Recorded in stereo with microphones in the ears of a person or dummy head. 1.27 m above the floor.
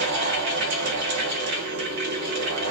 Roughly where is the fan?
Right.